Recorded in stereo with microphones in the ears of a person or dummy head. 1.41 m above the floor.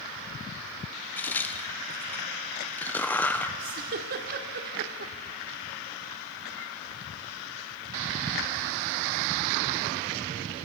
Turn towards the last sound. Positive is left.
turn(degrees=-55)  # may be behind; listen again after turning